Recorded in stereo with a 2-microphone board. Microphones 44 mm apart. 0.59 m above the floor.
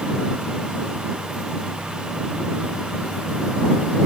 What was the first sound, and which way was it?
Only background noise.